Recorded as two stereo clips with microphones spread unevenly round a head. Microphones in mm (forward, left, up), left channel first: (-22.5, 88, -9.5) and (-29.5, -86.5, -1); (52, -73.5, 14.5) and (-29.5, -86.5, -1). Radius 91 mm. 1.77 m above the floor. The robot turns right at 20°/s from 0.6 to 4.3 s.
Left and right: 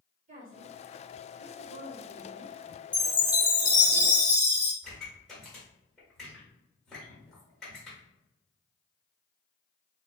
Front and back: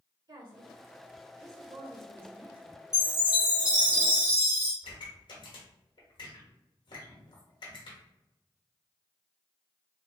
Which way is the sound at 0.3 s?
140° right.